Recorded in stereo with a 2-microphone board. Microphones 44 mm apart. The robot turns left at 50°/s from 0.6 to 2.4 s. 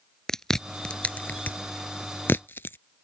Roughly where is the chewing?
Centre.